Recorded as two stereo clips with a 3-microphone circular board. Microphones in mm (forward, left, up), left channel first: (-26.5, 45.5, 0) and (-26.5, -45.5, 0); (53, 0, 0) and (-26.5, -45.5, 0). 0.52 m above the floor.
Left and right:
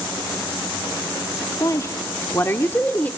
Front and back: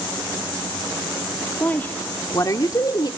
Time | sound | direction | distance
1.6 | a woman speaking | 90° left | 1.1 m